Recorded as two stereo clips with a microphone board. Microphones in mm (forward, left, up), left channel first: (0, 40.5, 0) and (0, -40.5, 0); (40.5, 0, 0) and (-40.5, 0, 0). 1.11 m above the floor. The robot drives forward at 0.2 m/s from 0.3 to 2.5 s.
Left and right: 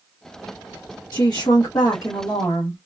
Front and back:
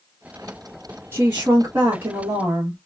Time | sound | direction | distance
1.1 | a woman speaking | 120° left | 1.0 m